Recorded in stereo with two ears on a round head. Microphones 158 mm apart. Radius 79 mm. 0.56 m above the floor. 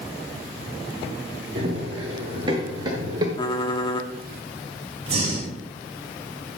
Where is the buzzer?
No buzzer in this recording.